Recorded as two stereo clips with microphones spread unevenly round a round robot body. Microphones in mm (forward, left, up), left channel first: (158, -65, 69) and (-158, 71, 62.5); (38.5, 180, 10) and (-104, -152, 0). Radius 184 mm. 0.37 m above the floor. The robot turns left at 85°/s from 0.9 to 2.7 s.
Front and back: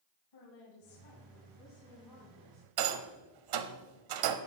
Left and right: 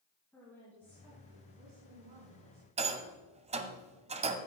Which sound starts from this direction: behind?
A rattle, at 2.8 s.